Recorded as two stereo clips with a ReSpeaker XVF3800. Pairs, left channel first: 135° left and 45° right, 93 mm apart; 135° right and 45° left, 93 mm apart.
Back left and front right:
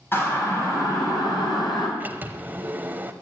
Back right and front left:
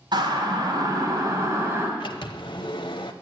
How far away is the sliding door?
About 0.9 m.